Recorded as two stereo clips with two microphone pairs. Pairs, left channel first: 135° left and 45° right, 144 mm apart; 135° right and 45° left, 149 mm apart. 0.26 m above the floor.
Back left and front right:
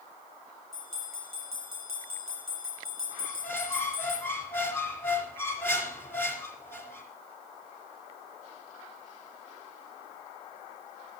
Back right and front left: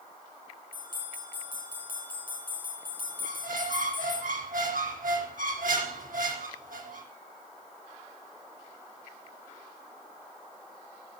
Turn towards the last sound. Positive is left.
turn(degrees=60)